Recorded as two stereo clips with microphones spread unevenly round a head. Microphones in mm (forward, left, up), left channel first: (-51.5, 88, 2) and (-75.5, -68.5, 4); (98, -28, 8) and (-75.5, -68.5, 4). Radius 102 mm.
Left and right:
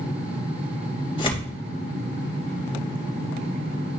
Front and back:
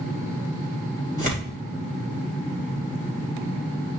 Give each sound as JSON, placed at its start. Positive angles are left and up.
{"t": 1.2, "sound": "tearing paper", "azimuth_deg": 140, "distance_m": 3.0}